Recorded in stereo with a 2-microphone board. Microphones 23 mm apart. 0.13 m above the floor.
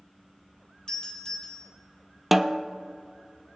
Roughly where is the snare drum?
Centre.